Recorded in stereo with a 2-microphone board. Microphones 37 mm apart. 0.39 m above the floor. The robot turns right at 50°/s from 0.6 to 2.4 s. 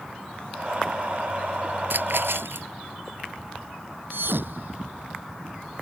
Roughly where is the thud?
Right.